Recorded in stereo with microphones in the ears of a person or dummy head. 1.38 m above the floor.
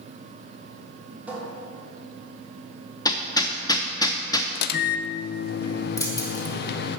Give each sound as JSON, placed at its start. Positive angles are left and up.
{"t": 1.3, "sound": "a cupboard door", "side_deg": -10, "distance_m": 2.0}
{"t": 3.0, "sound": "hammering", "side_deg": 20, "distance_m": 0.7}
{"t": 4.5, "sound": "a microwave", "side_deg": 60, "distance_m": 0.6}
{"t": 6.0, "sound": "keys jangling", "side_deg": 20, "distance_m": 0.9}